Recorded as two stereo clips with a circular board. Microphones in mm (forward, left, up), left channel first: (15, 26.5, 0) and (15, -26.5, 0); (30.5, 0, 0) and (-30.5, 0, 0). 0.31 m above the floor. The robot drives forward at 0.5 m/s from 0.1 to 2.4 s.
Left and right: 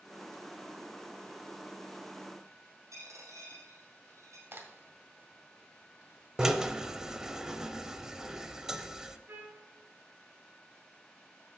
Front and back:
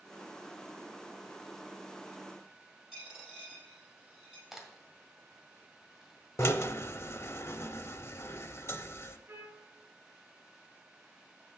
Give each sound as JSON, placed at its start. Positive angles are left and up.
{"t": 2.9, "sound": "a dropped coin", "azimuth_deg": -100, "distance_m": 4.0}
{"t": 4.5, "sound": "a crack", "azimuth_deg": -95, "distance_m": 1.7}
{"t": 6.4, "sound": "a drill", "azimuth_deg": -15, "distance_m": 0.6}
{"t": 9.3, "sound": "a trumpet", "azimuth_deg": -135, "distance_m": 3.0}